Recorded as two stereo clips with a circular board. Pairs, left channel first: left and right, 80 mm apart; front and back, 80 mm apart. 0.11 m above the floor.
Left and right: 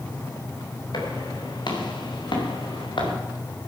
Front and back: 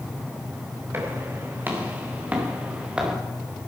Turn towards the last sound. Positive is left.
turn(degrees=100)